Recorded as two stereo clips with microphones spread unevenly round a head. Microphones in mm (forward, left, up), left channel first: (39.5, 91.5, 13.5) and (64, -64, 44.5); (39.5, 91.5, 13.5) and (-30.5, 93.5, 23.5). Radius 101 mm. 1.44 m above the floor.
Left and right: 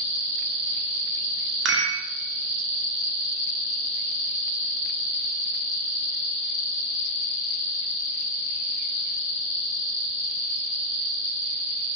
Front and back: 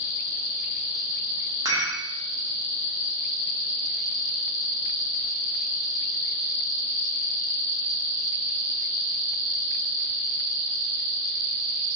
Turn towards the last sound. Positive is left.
turn(degrees=-110)